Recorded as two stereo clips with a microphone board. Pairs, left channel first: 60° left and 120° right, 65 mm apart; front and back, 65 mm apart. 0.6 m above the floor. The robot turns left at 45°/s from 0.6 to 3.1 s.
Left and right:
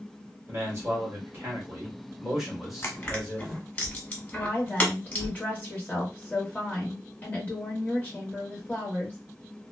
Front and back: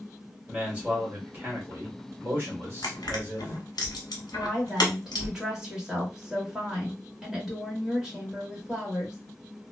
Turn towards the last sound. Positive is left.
turn(degrees=105)